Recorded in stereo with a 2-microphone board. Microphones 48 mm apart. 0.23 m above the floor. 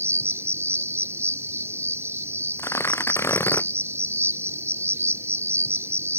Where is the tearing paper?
75° left (ahead or behind).